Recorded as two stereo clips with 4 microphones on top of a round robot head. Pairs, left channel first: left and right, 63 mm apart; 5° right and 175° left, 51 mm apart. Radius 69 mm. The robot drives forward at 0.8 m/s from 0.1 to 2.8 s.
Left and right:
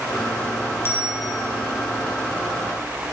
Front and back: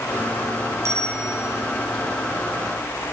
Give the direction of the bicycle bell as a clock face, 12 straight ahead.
7 o'clock.